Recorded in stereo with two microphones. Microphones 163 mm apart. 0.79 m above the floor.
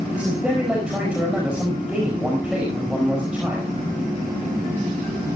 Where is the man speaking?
5° right (ahead or behind), 5.5 m.